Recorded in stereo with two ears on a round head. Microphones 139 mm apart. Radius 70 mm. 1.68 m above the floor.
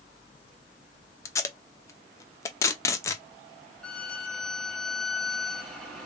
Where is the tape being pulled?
20° left (ahead or behind), 0.6 m.